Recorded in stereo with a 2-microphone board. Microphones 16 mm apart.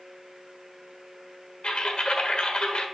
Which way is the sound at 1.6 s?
70° left (ahead or behind).